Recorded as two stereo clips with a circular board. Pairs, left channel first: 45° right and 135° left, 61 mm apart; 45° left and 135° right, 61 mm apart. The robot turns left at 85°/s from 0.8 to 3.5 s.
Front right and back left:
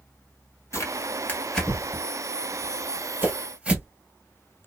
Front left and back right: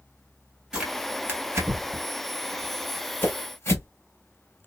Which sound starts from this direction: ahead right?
Tearing paper, at 0.7 s.